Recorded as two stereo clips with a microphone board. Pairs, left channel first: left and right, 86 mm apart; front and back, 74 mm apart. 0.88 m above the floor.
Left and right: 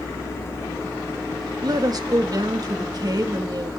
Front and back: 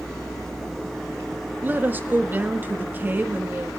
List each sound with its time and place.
1.6 s a woman speaking: 120° right, 1.5 m